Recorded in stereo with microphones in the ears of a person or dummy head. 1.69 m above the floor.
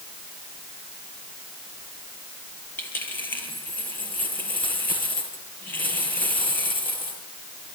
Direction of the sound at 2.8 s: 10° left (ahead or behind).